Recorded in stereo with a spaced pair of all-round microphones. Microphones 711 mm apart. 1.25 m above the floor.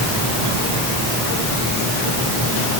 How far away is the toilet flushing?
I don't hear a toilet flushing.